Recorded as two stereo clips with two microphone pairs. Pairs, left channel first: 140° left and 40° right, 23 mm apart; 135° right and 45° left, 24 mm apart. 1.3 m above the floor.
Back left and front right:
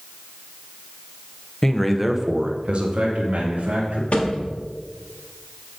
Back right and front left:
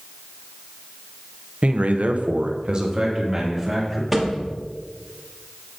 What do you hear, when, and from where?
1.6 s a man speaking: 75° left, 0.9 m; by 4.0 s 30° right, 2 m
4.1 s a thud: 130° left, 1.5 m